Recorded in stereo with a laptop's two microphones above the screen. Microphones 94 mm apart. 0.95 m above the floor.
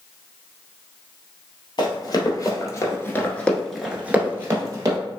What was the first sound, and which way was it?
Running footsteps, 55° left (ahead or behind).